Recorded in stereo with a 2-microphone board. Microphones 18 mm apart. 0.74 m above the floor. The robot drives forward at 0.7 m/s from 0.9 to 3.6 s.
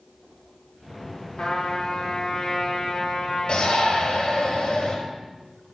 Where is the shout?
55° left (ahead or behind), 5 m.